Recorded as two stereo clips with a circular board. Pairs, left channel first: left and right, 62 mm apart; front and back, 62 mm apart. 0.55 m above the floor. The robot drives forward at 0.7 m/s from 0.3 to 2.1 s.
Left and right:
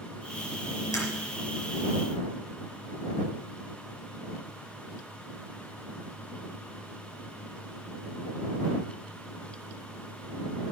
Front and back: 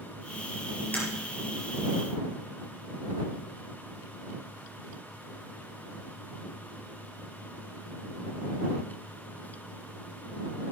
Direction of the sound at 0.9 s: 65° left.